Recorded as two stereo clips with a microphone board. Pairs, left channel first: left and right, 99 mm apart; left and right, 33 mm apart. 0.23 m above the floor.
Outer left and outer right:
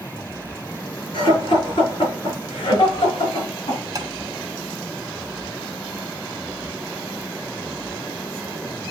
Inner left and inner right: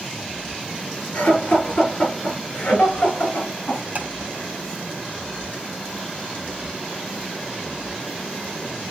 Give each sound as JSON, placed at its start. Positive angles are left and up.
{"t": 1.1, "sound": "laughter", "side_deg": 50, "distance_m": 5.0}
{"t": 4.0, "sound": "tapping", "side_deg": -40, "distance_m": 1.6}